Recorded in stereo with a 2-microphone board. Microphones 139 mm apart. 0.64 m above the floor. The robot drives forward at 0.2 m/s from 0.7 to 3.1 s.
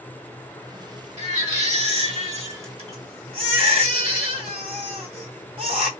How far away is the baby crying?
About 1.2 m.